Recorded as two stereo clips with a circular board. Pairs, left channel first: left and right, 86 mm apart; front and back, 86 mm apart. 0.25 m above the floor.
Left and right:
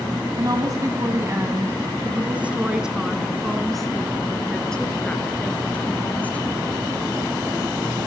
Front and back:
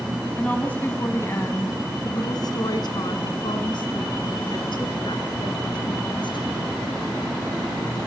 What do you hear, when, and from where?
0.4 s a woman speaking: 70° right, 1.8 m; by 6.5 s 20° left, 4 m